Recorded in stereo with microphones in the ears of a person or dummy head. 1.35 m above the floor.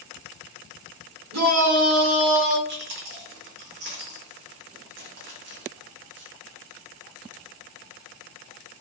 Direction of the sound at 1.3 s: 85° right.